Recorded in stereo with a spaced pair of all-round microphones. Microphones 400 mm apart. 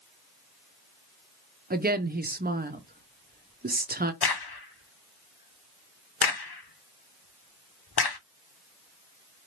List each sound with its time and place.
1.7 s a woman speaking: 25° right (ahead or behind), 0.6 m
4.2 s a crack: 70° left (ahead or behind), 0.6 m